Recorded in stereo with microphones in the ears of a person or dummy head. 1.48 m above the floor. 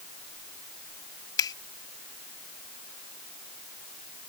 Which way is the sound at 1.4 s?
20° left (ahead or behind).